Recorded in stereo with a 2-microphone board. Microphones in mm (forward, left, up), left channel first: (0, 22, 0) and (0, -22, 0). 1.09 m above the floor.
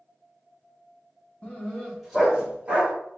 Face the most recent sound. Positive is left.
turn(degrees=-35)  # may be behind; listen again after turning